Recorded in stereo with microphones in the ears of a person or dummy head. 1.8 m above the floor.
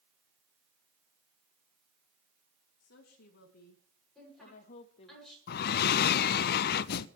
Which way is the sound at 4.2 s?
5° left (ahead or behind).